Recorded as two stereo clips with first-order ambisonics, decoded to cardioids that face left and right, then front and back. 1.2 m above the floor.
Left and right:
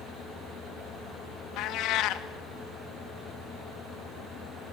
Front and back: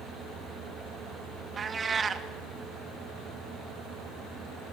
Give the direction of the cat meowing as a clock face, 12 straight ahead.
8 o'clock.